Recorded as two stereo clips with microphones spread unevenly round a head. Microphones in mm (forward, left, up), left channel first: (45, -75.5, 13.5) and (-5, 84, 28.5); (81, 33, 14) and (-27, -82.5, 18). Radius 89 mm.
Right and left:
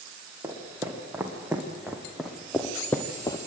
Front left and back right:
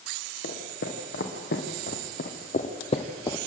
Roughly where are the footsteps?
Ahead left.